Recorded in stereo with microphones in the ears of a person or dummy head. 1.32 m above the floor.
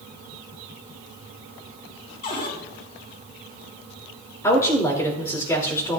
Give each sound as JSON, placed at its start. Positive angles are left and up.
{"t": 2.2, "sound": "a cupboard door", "side_deg": 45, "distance_m": 2.0}
{"t": 4.4, "sound": "a woman speaking", "side_deg": 15, "distance_m": 3.0}